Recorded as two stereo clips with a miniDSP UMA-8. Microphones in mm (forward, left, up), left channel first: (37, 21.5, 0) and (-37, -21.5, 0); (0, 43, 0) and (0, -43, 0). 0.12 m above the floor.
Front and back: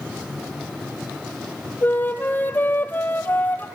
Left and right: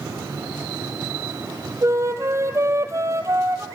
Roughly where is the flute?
Ahead right.